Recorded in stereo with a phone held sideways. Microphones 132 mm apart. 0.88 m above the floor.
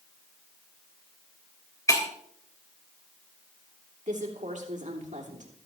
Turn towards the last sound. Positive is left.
turn(degrees=-70)  # may be behind; listen again after turning